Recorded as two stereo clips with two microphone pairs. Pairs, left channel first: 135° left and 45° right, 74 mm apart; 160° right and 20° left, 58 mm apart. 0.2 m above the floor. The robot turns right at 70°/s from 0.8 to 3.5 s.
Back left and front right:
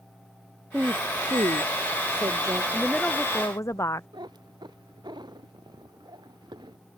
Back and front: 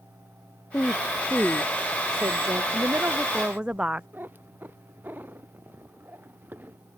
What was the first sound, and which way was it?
A woman speaking, 115° right.